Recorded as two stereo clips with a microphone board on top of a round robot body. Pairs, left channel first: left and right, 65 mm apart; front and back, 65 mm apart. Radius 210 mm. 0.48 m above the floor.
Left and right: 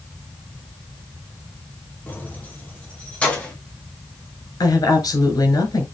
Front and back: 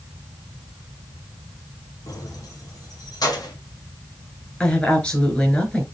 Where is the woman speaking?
70° left, 4.5 m.